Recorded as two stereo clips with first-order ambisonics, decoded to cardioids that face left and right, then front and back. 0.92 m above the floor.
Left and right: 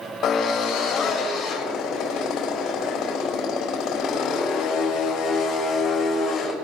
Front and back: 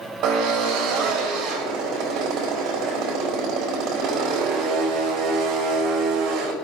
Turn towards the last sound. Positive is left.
turn(degrees=145)